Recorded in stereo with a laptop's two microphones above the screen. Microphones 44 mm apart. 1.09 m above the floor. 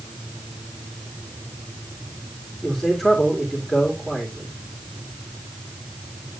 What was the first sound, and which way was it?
A man speaking, centre (ahead or behind).